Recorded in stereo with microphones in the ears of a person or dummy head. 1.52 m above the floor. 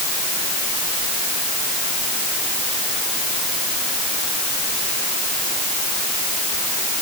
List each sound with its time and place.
Only background noise.